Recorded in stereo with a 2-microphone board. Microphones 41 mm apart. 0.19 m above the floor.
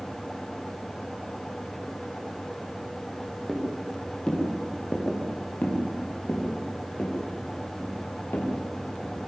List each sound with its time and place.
3.5 s footsteps: 5° left (ahead or behind), 7 m; by 9.2 s 60° left (ahead or behind), 9 m